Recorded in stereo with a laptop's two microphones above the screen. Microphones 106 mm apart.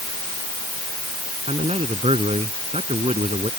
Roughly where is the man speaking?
Right.